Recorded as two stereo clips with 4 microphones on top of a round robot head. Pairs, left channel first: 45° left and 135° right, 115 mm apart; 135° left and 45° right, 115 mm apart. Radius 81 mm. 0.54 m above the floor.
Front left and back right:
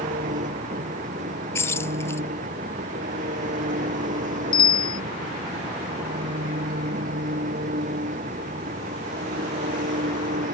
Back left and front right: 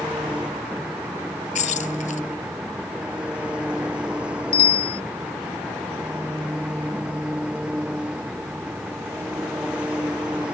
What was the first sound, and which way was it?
An engine running, 125° right.